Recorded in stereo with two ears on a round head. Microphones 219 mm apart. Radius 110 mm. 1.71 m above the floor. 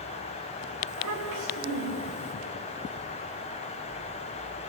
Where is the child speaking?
85° right, 6.5 m.